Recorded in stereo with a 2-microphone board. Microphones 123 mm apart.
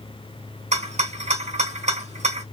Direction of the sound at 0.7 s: 65° right (ahead or behind).